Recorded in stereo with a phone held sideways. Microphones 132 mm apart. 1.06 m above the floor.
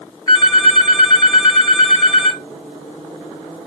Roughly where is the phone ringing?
Left.